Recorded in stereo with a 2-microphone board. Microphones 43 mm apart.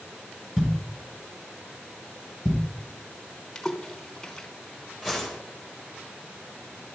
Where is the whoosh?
10° right (ahead or behind), 3 m.